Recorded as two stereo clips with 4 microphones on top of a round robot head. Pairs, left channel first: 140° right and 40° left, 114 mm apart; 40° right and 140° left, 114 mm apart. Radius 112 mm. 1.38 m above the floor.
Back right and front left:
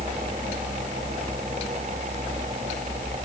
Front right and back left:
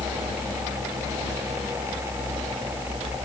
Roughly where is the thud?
I don't hear a thud.